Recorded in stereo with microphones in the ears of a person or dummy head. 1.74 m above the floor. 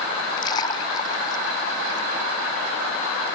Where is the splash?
20° left (ahead or behind).